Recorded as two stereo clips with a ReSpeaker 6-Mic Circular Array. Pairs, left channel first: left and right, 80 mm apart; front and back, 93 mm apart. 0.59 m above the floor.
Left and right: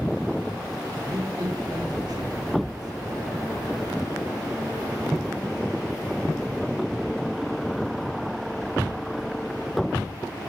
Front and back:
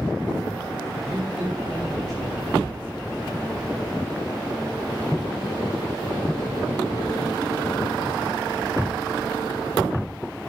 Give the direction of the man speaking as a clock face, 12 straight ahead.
3 o'clock.